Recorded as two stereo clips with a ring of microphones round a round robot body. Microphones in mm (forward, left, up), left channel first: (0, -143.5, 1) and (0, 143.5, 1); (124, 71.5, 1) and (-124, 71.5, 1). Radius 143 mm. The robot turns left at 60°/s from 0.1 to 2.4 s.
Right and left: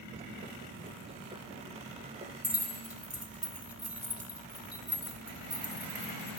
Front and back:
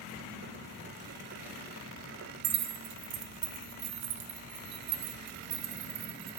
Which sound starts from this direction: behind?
Keys jangling, at 2.4 s.